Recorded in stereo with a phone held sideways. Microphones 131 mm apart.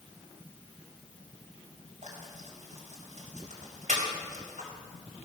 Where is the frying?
65° right (ahead or behind), 4 m.